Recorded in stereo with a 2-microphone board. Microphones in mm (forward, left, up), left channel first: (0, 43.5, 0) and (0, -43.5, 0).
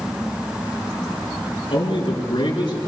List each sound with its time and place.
1.7 s a man speaking: 75° left (ahead or behind), 5.5 m